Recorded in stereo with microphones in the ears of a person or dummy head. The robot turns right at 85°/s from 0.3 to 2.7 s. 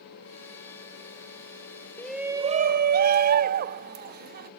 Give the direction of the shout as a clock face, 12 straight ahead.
6 o'clock.